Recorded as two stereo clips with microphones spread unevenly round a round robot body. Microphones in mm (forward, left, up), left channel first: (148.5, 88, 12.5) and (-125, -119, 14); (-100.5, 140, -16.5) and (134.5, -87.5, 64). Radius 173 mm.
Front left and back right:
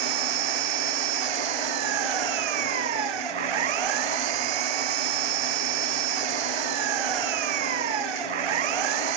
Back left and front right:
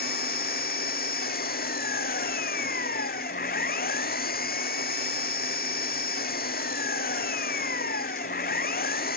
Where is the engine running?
160° right.